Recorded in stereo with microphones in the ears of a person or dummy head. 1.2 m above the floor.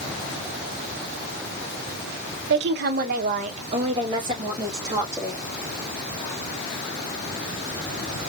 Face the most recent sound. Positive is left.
turn(degrees=-15)  # may be behind; listen again after turning